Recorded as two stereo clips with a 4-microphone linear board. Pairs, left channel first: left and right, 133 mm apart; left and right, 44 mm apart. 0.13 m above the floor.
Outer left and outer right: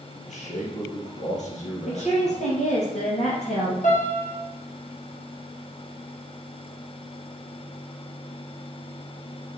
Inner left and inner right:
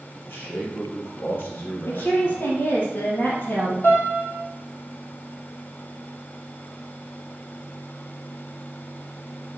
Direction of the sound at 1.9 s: 60° left (ahead or behind).